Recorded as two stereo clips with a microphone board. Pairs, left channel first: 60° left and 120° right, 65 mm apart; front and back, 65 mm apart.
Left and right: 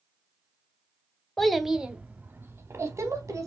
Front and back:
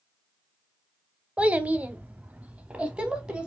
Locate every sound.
1.4 s a child speaking: 135° left, 0.7 m; by 3.5 s 110° right, 1.1 m